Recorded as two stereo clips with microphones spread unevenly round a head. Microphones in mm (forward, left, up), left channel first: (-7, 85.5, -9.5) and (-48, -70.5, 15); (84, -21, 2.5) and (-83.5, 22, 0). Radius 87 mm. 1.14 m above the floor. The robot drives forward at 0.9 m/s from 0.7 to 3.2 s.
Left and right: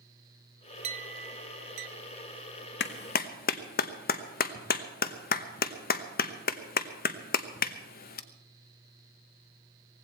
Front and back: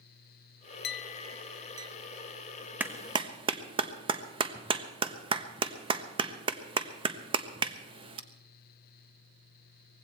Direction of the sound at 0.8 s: 50° right.